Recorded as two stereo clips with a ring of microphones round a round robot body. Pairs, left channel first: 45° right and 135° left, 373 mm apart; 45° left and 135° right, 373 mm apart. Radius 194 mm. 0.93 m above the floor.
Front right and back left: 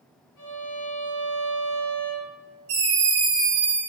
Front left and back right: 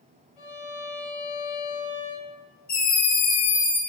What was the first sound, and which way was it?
A violin, straight ahead.